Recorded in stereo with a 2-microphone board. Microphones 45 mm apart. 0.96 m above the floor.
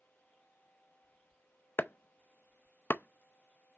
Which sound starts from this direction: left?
Chopping, at 1.8 s.